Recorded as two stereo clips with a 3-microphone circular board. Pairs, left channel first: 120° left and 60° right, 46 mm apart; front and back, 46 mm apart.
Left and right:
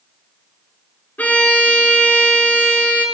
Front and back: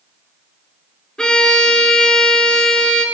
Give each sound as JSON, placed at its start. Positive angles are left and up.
{"t": 1.2, "sound": "a violin", "azimuth_deg": 70, "distance_m": 1.2}